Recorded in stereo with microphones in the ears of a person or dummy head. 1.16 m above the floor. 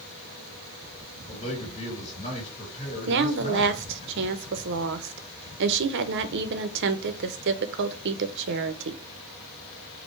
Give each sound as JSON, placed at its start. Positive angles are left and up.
{"t": 1.3, "sound": "a man speaking", "side_deg": 35, "distance_m": 3.0}
{"t": 3.1, "sound": "a woman speaking", "side_deg": -65, "distance_m": 0.7}